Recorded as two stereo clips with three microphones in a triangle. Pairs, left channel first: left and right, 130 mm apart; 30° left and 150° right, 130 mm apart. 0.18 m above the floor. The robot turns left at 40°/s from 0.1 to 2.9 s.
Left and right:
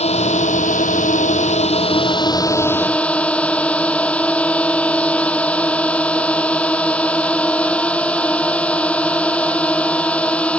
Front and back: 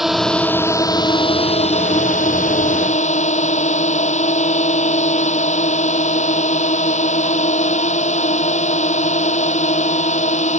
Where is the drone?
120° left; by 10.6 s 10° left.